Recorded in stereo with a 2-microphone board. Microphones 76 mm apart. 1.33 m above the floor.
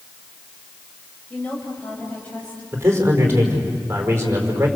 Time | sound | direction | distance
1.3 | a woman speaking | 20° left (ahead or behind) | 6.5 m
2.7 | a man speaking | 30° right (ahead or behind) | 5 m